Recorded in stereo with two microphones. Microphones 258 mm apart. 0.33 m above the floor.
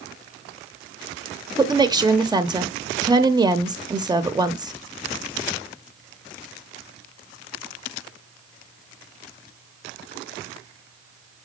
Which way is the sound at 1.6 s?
15° right (ahead or behind).